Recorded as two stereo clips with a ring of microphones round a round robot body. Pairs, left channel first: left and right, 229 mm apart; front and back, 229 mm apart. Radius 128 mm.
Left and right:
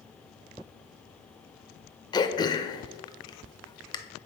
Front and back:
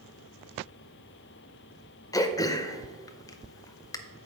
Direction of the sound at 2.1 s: 50° left.